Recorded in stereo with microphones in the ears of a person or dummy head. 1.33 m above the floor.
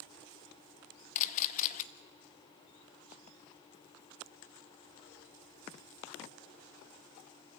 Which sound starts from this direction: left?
A camera shutter, at 1.1 s.